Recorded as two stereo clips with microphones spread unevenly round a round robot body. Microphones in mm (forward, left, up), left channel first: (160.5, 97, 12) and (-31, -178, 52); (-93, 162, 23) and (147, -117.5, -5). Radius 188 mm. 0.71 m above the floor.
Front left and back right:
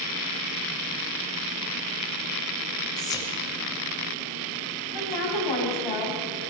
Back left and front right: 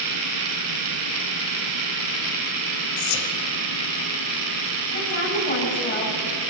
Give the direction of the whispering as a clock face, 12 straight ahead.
8 o'clock.